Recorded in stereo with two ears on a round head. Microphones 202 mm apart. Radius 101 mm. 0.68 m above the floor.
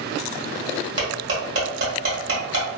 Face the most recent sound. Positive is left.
turn(degrees=-55)  # may be behind; listen again after turning